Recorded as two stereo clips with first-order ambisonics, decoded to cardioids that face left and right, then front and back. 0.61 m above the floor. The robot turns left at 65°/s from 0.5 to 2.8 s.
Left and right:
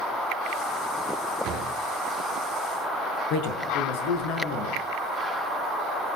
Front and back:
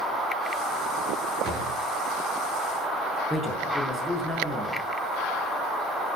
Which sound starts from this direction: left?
A man speaking, at 3.3 s.